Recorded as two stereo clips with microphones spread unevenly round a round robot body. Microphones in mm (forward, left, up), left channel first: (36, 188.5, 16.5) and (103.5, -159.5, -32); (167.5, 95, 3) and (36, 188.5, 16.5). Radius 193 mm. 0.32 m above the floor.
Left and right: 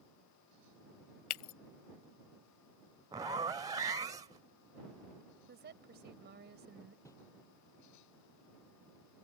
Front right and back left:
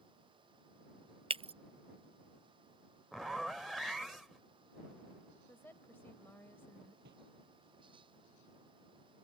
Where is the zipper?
115° right.